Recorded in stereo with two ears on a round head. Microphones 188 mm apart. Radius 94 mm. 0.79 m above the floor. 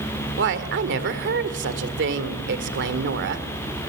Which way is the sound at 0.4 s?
60° right (ahead or behind).